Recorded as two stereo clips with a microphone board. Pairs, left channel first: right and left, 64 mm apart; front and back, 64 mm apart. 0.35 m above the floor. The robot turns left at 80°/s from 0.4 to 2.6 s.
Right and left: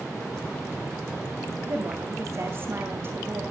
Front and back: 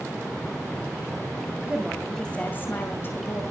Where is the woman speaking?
125° left, 2 m; by 3.4 s 45° left, 2 m.